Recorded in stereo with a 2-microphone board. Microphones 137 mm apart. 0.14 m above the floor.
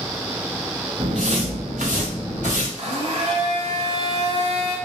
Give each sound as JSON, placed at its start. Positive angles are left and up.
{"t": 1.0, "sound": "footsteps", "side_deg": -45, "distance_m": 0.7}
{"t": 2.8, "sound": "a blender", "side_deg": -55, "distance_m": 1.1}